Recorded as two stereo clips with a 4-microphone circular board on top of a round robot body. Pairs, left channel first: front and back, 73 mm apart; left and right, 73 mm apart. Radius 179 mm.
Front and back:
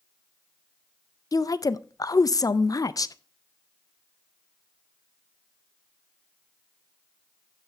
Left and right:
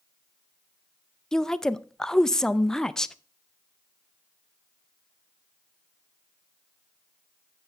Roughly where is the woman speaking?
Ahead.